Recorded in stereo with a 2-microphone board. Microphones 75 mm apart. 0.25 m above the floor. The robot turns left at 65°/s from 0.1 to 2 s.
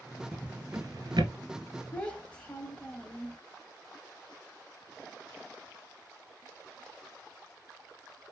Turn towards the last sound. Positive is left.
turn(degrees=15)  # may be behind; listen again after turning